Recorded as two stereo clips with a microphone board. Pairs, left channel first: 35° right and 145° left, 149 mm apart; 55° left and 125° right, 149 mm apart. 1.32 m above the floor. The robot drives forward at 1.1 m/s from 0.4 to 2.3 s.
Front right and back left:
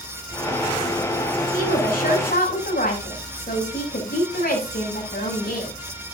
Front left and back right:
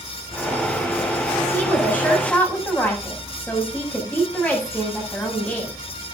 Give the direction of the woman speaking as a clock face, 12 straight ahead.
1 o'clock.